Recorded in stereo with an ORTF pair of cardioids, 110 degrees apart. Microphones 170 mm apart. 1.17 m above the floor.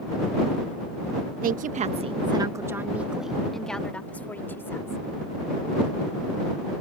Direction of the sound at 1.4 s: 60° right.